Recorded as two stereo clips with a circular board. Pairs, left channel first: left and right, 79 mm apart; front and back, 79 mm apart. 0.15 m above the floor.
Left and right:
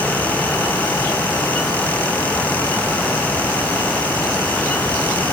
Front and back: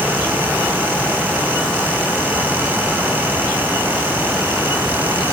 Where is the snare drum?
I don't hear a snare drum.